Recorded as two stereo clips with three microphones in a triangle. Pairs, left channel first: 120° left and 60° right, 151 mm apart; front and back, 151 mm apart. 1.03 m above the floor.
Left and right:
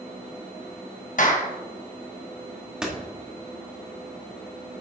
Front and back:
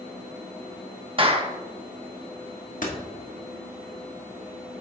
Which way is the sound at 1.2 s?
135° left.